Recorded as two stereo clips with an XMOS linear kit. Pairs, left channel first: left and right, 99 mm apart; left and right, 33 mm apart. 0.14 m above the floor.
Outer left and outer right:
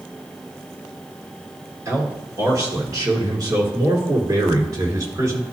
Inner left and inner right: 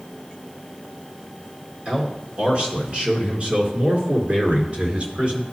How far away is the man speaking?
About 2 m.